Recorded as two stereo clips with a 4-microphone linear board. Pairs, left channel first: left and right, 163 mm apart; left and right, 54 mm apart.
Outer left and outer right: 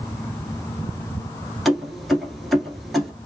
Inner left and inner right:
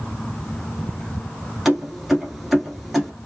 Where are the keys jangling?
Centre (ahead or behind), 1.3 m.